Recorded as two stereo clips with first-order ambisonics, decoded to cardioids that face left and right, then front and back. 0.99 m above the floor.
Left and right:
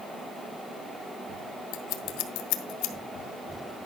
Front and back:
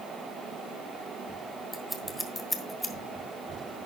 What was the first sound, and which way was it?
Scissors, 85° left.